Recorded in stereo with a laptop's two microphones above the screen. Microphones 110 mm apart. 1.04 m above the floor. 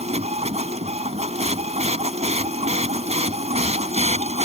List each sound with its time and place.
0.0 s a machine running: 80° right